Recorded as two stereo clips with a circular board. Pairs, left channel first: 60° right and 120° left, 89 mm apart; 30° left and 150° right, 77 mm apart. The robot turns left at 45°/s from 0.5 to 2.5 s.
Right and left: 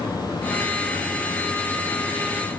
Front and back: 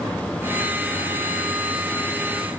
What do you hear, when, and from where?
Only background noise.